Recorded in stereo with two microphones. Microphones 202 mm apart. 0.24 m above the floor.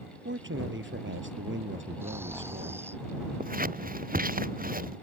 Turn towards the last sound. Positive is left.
turn(degrees=-45)  # may be behind; listen again after turning